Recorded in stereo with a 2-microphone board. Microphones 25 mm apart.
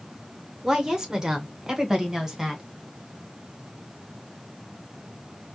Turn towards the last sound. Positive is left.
turn(degrees=-20)  # may be behind; listen again after turning